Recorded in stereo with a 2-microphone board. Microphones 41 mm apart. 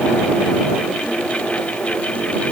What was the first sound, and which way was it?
Only background noise.